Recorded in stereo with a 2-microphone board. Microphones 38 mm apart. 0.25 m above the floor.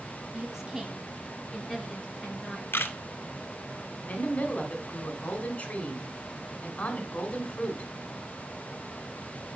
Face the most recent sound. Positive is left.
turn(degrees=45)  # may be behind; listen again after turning